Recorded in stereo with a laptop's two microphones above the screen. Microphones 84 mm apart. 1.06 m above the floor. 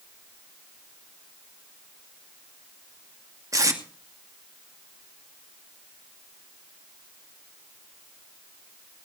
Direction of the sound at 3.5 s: 40° right (ahead or behind).